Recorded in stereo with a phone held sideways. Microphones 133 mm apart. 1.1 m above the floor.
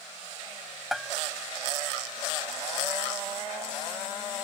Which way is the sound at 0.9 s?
Centre (ahead or behind).